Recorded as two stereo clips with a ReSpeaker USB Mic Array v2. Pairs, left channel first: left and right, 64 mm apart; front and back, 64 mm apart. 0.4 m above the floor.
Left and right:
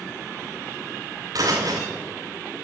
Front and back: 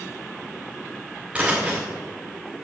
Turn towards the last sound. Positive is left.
turn(degrees=-105)